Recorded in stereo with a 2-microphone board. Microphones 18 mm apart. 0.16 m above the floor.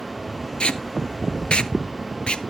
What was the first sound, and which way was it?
Tape being pulled, 70° left (ahead or behind).